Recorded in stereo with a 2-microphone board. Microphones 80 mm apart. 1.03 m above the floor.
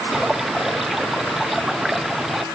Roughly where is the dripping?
Centre.